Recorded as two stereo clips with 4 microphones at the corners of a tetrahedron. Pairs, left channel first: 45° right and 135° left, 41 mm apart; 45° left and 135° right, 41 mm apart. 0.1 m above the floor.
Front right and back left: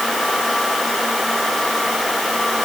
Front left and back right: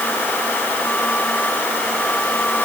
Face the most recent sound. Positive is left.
No sound to turn to.